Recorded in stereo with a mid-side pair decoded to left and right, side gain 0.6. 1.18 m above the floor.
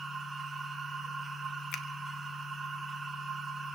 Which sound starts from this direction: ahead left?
A finger snap, at 1.7 s.